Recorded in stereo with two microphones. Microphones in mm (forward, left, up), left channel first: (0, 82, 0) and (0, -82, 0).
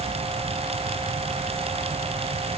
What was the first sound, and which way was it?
Only background noise.